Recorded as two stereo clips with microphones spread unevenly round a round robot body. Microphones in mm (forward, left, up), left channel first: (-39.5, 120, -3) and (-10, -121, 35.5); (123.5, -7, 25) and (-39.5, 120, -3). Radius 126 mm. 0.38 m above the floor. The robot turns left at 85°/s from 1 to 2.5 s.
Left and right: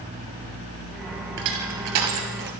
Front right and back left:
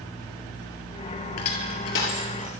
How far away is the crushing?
About 2.5 m.